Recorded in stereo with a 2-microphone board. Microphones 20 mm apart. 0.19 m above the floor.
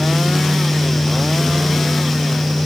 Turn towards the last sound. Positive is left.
No sound to turn to.